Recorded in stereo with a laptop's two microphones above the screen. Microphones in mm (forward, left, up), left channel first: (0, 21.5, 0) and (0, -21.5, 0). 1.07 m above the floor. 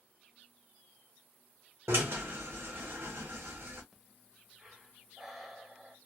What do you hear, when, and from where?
1.9 s a drill: 75° right (ahead or behind), 0.9 m
3.9 s breathing: 5° right (ahead or behind), 0.5 m